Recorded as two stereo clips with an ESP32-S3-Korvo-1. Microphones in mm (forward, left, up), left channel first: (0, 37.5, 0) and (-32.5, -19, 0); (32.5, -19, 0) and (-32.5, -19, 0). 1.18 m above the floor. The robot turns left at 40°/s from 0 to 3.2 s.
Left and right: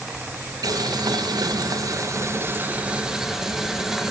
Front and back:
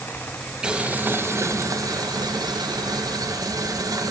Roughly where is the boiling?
Right.